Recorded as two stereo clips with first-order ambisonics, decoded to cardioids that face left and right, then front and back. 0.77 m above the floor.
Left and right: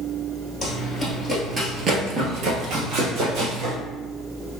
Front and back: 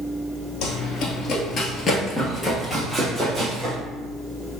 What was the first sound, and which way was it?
Running footsteps, 5° left.